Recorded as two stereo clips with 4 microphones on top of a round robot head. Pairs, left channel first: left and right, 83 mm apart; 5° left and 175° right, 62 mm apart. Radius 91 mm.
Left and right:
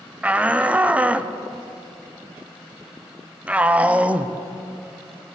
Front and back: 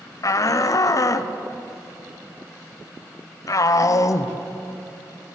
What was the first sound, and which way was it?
A shout, 15° right.